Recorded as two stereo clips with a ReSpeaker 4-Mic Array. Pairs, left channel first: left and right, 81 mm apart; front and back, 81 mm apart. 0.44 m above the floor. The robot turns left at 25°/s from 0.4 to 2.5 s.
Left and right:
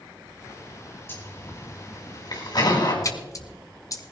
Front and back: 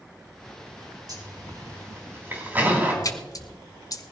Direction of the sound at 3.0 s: 45° left.